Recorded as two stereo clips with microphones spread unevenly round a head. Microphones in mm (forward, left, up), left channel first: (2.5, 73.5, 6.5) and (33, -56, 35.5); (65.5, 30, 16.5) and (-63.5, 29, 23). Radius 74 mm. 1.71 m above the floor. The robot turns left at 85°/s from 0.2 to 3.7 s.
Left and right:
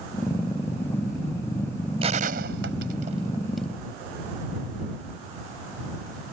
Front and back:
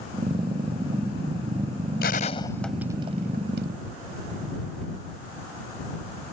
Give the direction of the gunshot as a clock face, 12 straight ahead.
1 o'clock.